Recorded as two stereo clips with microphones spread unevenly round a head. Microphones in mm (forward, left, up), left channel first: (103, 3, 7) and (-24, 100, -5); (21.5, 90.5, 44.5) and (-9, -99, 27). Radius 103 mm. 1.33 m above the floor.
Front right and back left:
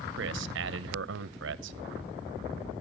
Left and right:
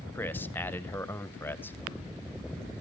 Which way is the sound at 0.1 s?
160° left.